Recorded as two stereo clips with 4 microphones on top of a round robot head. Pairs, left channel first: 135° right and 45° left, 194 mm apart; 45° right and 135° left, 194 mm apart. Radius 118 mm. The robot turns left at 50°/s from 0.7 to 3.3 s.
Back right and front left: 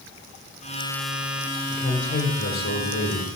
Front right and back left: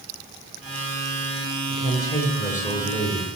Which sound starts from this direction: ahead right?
A woman speaking, at 1.7 s.